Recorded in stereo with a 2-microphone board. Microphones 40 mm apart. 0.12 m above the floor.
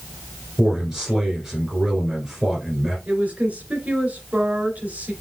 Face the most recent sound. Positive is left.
turn(degrees=-40)  # may be behind; listen again after turning